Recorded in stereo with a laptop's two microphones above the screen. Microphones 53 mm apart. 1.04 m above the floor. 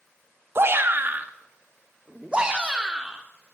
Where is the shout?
50° right (ahead or behind), 1.3 m; by 3.2 s 15° right (ahead or behind), 2.5 m.